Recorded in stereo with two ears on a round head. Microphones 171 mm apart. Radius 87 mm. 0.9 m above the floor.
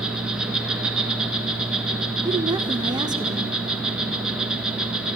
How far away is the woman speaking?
About 0.8 m.